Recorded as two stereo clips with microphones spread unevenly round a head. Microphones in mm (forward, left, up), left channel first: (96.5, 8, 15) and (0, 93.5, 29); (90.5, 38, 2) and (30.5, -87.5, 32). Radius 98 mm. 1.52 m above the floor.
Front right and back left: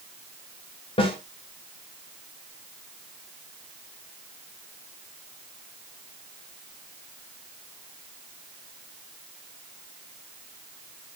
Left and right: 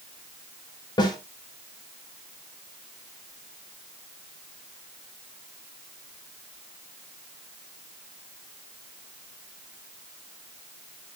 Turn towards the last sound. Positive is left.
turn(degrees=5)